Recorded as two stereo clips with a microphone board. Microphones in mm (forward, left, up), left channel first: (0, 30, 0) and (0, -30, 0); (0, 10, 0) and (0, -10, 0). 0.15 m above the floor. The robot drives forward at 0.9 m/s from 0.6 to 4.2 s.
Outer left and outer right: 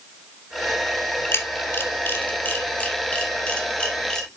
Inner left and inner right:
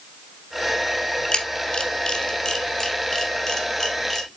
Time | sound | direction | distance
1.3 | a camera shutter | 45° left (ahead or behind) | 1.2 m